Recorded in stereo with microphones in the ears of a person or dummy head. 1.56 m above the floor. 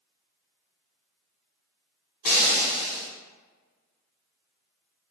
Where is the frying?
50° left (ahead or behind), 1.4 m.